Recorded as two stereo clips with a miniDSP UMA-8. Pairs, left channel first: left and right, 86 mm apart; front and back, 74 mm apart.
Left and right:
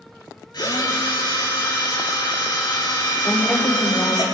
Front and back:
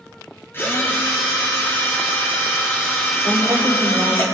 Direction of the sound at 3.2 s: 145° left.